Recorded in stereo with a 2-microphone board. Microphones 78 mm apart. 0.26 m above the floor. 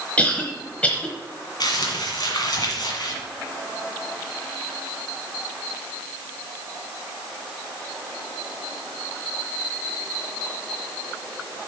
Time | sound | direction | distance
0.2 | a cough | 20° left (ahead or behind) | 1.0 m
1.6 | crumpling | 60° left (ahead or behind) | 1.8 m